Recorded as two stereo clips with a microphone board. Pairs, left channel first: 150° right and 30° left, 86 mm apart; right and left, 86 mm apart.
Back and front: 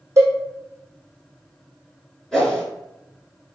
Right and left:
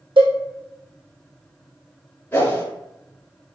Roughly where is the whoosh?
Right.